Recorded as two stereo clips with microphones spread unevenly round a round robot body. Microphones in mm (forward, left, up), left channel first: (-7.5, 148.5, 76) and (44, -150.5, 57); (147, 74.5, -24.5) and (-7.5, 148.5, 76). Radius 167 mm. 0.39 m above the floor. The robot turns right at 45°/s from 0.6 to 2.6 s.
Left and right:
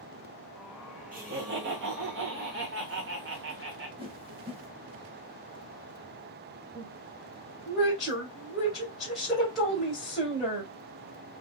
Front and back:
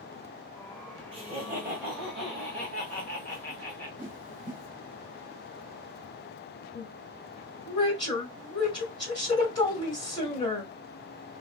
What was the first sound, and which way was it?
Laughter, 125° right.